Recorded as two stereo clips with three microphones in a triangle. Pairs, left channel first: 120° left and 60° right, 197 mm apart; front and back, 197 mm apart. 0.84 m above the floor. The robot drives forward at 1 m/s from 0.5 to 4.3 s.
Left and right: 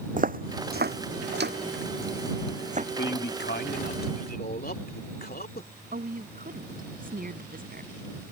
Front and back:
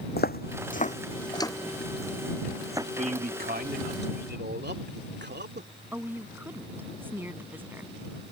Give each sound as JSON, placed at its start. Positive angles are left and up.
{"t": 0.2, "sound": "footsteps", "azimuth_deg": -20}
{"t": 3.0, "sound": "a man speaking", "azimuth_deg": 130}
{"t": 5.9, "sound": "a woman speaking", "azimuth_deg": -100}